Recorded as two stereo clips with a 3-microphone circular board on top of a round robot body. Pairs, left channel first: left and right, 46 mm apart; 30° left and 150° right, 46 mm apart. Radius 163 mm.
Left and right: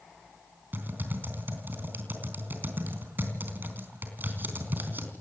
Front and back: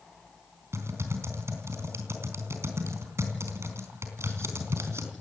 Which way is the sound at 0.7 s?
135° right.